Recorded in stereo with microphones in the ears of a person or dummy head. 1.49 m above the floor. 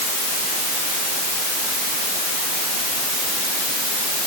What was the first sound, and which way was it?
Only background noise.